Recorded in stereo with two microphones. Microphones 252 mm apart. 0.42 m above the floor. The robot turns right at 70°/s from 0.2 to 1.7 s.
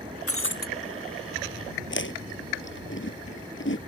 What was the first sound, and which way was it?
Breaking glass, 65° left (ahead or behind).